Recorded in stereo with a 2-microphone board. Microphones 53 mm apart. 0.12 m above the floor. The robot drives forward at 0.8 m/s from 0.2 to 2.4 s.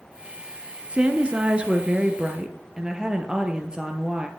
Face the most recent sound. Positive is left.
turn(degrees=-15)  # may be behind; listen again after turning